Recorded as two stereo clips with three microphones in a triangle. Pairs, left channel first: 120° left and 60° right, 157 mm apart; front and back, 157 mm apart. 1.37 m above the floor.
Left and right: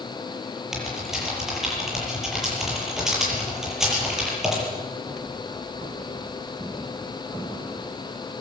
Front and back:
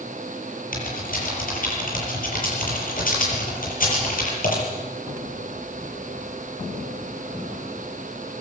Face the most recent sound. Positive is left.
turn(degrees=25)